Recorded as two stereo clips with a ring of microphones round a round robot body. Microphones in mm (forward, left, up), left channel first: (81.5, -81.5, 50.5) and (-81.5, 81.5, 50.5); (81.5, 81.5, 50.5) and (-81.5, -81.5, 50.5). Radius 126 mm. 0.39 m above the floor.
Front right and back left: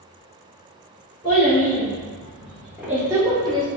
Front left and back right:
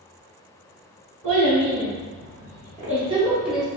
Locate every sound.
1.2 s a child speaking: 130° right, 1.7 m; by 3.7 s 125° left, 0.9 m